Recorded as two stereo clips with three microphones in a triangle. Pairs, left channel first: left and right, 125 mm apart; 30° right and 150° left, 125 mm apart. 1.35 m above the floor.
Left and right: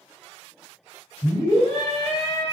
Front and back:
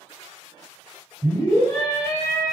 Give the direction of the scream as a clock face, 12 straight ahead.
11 o'clock.